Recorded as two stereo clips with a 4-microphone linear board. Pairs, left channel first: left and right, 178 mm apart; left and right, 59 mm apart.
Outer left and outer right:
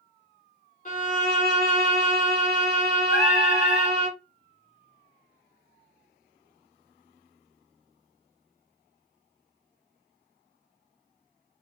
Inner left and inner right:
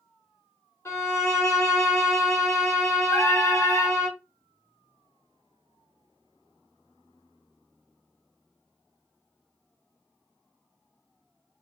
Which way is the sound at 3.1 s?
65° left (ahead or behind).